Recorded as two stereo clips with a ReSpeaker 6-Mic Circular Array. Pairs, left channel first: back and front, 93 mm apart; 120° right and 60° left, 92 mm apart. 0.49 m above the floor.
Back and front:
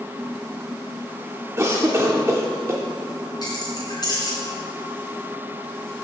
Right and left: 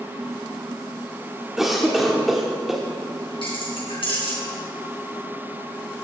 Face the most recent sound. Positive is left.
turn(degrees=-135)